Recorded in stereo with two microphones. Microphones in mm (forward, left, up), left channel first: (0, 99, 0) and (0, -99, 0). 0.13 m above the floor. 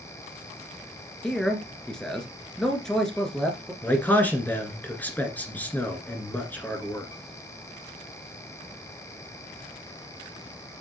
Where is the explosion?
No explosion in this recording.